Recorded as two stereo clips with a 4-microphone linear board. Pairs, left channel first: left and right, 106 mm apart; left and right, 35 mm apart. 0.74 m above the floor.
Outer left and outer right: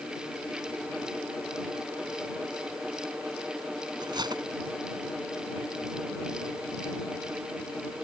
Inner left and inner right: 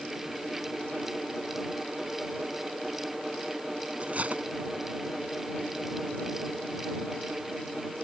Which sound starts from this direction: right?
Cutlery clinking, at 4.0 s.